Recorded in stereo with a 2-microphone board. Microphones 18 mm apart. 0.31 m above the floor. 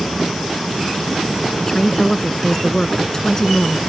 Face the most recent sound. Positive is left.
turn(degrees=30)  # may be behind; listen again after turning